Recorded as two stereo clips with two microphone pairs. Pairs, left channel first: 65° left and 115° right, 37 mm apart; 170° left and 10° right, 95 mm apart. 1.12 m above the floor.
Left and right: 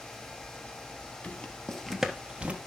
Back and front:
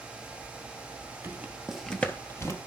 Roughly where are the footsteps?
Ahead left.